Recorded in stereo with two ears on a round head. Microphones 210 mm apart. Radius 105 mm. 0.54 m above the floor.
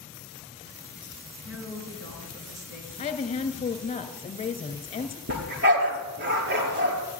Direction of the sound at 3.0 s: 25° left (ahead or behind).